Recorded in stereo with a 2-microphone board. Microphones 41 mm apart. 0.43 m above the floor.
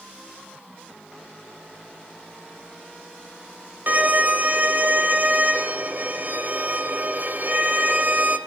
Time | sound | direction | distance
3.9 | a violin | 50° right (ahead or behind) | 1.8 m